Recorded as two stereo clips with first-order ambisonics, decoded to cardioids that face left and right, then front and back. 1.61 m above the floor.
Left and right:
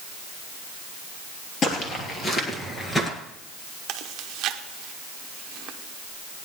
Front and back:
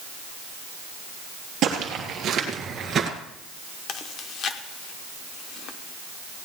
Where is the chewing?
50° right, 0.8 m.